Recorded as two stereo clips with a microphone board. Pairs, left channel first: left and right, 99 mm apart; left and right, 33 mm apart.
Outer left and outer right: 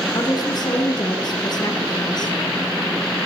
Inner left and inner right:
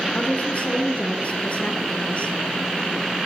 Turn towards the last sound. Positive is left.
turn(degrees=45)  # may be behind; listen again after turning